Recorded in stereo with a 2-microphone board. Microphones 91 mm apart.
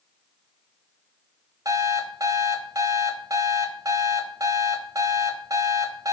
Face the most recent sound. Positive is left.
turn(degrees=-40)  # may be behind; listen again after turning